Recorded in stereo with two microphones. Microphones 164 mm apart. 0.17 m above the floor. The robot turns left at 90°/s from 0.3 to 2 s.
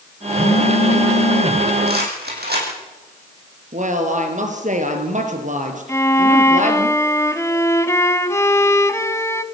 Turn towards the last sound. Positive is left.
turn(degrees=15)  # may be behind; listen again after turning